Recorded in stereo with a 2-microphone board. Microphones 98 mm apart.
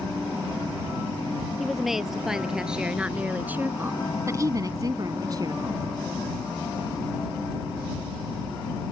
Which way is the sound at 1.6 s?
Centre (ahead or behind).